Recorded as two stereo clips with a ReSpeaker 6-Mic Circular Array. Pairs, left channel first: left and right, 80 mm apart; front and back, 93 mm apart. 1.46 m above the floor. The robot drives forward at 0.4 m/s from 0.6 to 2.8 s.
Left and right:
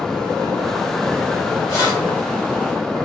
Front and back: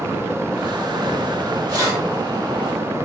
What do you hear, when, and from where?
1.7 s keys jangling: 140° left, 2 m